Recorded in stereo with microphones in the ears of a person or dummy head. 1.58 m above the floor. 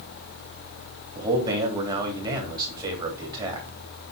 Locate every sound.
1.1 s a man speaking: 20° right (ahead or behind), 3 m